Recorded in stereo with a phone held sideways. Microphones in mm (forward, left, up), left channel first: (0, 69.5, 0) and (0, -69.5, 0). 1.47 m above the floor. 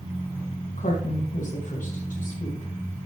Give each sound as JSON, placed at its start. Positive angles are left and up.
{"t": 0.8, "sound": "a woman speaking", "side_deg": 70, "distance_m": 1.9}